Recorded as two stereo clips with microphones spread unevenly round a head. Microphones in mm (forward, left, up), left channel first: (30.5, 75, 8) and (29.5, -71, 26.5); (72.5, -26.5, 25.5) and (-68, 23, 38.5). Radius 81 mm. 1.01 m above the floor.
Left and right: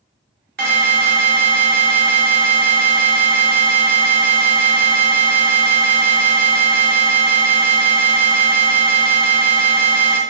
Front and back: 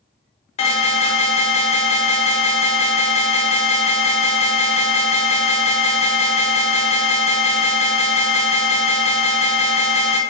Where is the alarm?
65° right, 0.7 m.